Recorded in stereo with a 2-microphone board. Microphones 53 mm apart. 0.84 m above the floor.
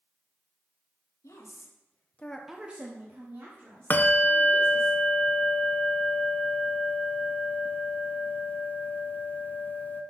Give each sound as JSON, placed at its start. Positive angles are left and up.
{"t": 1.2, "sound": "a woman speaking", "side_deg": 75, "distance_m": 1.6}
{"t": 3.9, "sound": "a bell", "side_deg": 35, "distance_m": 0.6}